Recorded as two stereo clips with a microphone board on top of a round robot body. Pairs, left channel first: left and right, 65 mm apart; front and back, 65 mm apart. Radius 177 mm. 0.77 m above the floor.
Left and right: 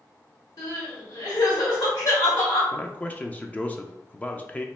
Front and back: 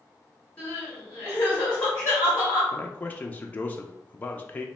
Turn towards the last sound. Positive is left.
turn(degrees=40)